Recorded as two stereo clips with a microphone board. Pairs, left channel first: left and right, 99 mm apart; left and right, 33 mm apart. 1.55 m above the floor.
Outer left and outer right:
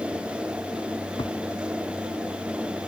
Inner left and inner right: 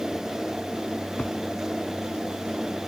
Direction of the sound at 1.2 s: 55° left (ahead or behind).